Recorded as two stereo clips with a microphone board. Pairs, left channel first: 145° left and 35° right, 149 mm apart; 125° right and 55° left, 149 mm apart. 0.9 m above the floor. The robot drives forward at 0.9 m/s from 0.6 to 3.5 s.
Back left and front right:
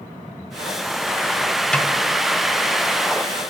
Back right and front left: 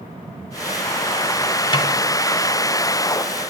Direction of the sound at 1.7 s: 135° right.